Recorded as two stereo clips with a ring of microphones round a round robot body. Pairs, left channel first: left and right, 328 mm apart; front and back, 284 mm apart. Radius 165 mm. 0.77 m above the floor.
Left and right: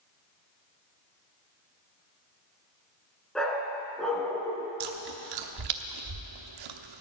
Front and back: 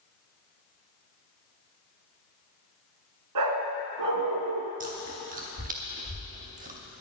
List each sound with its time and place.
3.4 s a dog barking: straight behind, 2.0 m
4.8 s chewing: 115° right, 1.0 m